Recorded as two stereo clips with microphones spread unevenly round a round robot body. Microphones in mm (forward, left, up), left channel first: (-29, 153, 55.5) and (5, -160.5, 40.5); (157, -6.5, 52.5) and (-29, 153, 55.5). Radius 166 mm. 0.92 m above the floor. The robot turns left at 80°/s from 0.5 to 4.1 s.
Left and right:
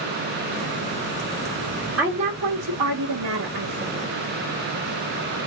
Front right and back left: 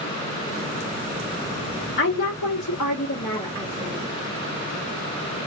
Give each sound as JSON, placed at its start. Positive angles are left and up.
{"t": 2.0, "sound": "a woman speaking", "azimuth_deg": 5, "distance_m": 1.5}